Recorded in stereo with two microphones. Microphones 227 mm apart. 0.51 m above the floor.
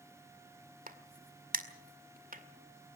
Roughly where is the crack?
Right.